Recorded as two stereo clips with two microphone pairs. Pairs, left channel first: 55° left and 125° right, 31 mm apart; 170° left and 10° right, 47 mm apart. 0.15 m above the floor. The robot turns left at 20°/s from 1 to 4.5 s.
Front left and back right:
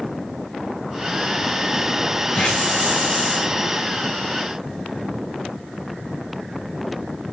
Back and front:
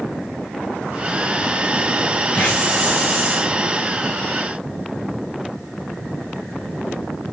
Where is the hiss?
115° left, 8.5 m; by 3.5 s 90° left, 8.5 m.